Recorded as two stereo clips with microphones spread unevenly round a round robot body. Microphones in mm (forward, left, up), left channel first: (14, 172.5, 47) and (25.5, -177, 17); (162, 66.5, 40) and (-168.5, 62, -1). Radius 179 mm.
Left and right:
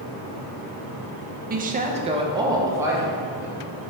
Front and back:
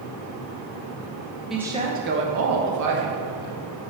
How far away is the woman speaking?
About 0.8 m.